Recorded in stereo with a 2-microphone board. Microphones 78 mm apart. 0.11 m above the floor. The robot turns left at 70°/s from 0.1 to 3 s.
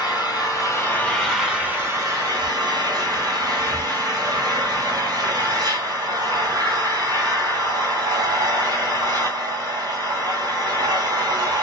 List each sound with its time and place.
0.0 s an engine running: 90° left, 1.2 m; by 11.6 s 115° right, 1.2 m